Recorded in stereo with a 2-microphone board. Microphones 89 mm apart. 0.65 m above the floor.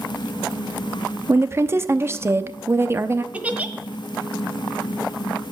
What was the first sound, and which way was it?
A woman speaking, 30° right (ahead or behind).